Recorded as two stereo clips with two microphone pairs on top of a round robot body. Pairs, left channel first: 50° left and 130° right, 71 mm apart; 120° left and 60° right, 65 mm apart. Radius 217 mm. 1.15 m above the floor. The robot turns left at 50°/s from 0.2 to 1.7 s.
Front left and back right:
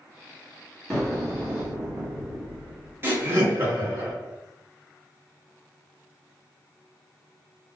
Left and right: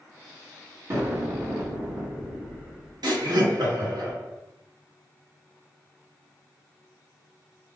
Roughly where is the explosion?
Ahead right.